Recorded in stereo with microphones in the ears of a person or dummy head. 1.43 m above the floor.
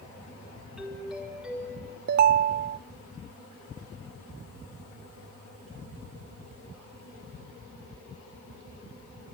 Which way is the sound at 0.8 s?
5° right (ahead or behind).